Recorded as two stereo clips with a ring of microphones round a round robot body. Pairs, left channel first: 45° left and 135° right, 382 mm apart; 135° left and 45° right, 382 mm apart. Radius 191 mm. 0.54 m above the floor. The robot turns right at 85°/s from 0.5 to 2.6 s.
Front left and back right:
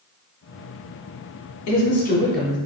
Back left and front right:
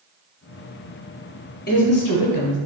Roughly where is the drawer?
No drawer in this recording.